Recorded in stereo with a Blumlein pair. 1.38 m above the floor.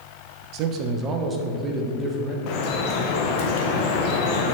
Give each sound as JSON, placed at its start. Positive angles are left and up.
{"t": 0.5, "sound": "a man speaking", "azimuth_deg": -40, "distance_m": 1.1}
{"t": 2.5, "sound": "dripping", "azimuth_deg": 45, "distance_m": 1.0}